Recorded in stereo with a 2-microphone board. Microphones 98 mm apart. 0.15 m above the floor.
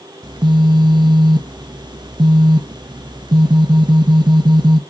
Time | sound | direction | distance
0.2 | a phone buzzing | 50° right (ahead or behind) | 0.6 m